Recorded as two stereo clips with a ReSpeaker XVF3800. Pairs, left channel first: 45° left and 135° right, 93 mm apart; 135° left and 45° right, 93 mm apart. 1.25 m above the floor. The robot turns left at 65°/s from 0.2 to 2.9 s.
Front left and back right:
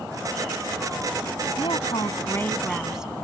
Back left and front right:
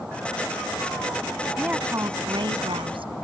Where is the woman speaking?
35° left; by 3.1 s 50° right.